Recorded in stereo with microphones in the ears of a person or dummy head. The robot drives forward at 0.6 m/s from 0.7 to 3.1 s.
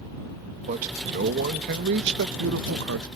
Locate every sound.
0.7 s a man speaking: 50° right (ahead or behind); by 3.1 s 75° right (ahead or behind)